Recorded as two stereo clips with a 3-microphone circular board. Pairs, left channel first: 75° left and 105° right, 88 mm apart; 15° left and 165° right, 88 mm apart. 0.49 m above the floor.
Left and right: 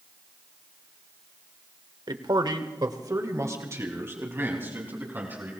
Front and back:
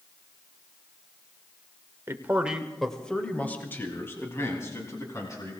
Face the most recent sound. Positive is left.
turn(degrees=-35)